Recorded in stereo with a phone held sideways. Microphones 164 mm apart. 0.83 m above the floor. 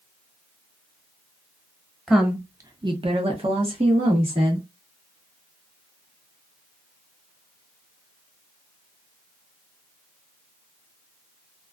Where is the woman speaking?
Centre (ahead or behind), 0.6 m; by 4.7 s 35° right (ahead or behind), 1.5 m.